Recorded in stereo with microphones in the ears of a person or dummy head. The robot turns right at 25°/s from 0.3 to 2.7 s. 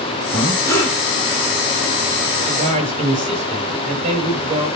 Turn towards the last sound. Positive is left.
turn(degrees=-35)  # may be behind; listen again after turning